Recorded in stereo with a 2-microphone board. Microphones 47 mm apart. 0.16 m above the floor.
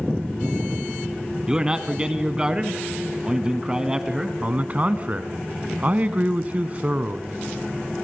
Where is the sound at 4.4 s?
30° right (ahead or behind), 1.1 m.